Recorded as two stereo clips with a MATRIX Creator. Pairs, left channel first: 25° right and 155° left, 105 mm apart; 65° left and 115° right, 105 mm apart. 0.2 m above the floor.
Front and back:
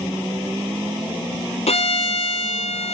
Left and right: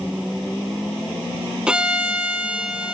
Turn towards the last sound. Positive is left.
turn(degrees=-30)